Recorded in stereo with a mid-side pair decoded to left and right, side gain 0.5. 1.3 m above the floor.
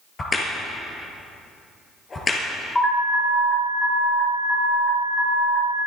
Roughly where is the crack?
Ahead left.